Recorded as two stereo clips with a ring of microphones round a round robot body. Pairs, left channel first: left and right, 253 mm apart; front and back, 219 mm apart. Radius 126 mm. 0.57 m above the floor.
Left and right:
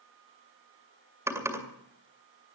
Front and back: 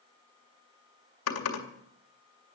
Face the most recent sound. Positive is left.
turn(degrees=-10)